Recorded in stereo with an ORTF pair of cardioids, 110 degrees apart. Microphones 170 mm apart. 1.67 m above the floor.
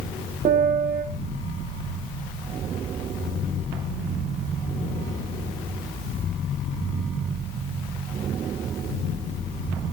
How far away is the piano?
About 3.5 m.